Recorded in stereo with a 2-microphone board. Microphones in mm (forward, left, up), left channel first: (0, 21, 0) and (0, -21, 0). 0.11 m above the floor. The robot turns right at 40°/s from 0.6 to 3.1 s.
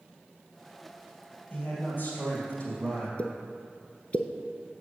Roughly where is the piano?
No piano in this recording.